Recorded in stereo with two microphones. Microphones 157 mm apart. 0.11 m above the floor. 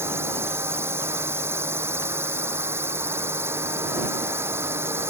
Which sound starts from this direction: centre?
A drone, at 0.0 s.